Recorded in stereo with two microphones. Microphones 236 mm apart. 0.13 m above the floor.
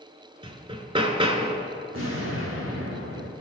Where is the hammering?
25° right (ahead or behind), 0.8 m.